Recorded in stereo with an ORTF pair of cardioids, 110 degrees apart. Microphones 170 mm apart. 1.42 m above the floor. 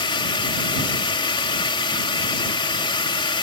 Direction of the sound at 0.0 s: 30° left.